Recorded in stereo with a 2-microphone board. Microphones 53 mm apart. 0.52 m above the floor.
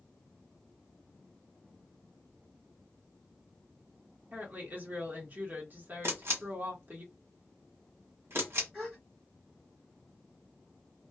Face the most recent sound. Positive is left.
turn(degrees=-15)  # may be behind; listen again after turning